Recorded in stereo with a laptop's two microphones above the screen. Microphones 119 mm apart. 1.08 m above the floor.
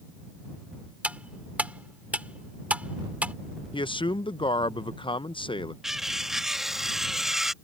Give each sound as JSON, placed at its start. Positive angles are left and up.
{"t": 1.0, "sound": "cutlery clinking", "side_deg": -10}
{"t": 3.7, "sound": "a man speaking", "side_deg": 45}
{"t": 5.8, "sound": "cutlery clinking", "side_deg": -5}